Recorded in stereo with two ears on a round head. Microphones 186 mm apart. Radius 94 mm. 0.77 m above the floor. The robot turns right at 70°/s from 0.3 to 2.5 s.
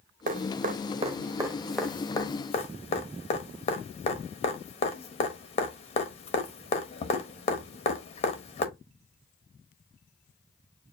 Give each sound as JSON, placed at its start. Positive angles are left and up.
{"t": 0.3, "sound": "dripping", "side_deg": -40, "distance_m": 0.8}